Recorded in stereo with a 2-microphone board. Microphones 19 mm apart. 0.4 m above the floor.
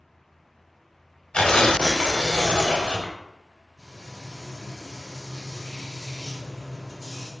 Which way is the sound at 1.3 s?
70° left (ahead or behind).